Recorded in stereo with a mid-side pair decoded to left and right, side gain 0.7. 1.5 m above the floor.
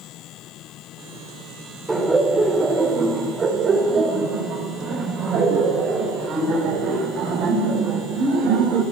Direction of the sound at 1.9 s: 10° right.